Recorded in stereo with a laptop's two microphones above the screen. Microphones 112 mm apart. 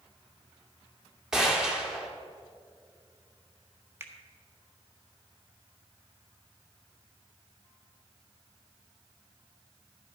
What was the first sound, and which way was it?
A gunshot, 5° right (ahead or behind).